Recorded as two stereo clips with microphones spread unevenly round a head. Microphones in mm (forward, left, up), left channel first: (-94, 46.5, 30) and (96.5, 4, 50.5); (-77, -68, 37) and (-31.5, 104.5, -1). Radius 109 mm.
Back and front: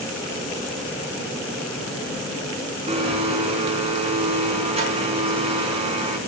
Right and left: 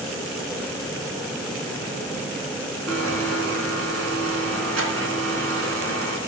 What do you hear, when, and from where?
2.9 s a blender: 40° left, 4 m